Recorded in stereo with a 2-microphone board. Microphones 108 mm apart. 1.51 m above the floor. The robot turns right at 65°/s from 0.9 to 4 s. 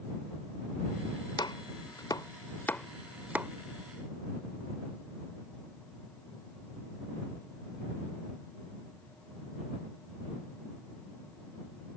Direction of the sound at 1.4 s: 45° left (ahead or behind).